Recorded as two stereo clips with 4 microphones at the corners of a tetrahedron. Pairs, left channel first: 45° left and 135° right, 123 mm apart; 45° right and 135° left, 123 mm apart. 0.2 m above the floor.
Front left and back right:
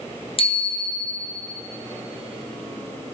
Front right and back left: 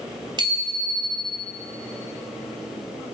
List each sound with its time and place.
0.4 s a bicycle bell: 85° left, 2.5 m